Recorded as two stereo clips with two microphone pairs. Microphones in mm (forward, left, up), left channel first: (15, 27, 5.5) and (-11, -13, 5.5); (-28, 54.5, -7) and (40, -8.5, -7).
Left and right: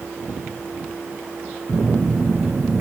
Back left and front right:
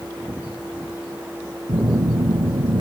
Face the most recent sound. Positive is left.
turn(degrees=-70)